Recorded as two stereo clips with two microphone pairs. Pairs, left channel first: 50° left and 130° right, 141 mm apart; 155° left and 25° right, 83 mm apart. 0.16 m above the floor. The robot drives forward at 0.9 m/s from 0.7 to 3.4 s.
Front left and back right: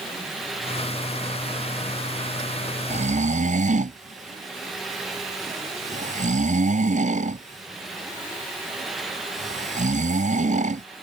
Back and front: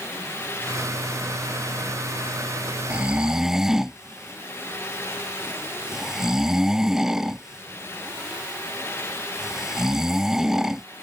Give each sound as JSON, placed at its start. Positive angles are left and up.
{"t": 2.9, "sound": "snoring", "azimuth_deg": -100}